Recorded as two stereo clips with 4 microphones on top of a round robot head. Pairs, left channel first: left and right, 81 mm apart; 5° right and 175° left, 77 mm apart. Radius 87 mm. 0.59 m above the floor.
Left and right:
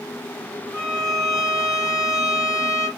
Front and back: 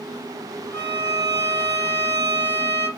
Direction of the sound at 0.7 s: 55° left.